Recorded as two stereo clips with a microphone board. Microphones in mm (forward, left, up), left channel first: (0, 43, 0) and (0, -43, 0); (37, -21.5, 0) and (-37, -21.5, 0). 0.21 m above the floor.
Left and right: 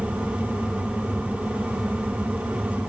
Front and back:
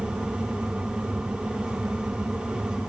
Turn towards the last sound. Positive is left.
No sound to turn to.